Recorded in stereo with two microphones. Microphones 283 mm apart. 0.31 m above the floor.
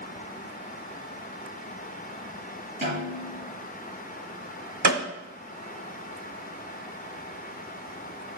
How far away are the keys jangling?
I don't hear keys jangling.